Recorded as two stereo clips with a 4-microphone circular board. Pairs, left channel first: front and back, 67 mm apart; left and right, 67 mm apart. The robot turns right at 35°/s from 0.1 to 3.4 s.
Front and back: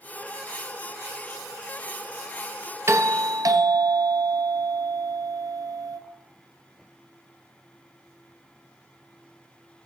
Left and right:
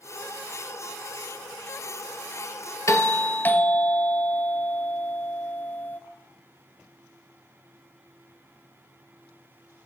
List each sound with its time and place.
2.9 s a doorbell: 130° left, 0.6 m; by 6.0 s 150° left, 0.6 m